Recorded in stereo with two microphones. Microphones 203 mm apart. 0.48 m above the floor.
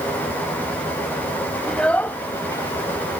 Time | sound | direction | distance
1.7 | a child speaking | 5° left (ahead or behind) | ?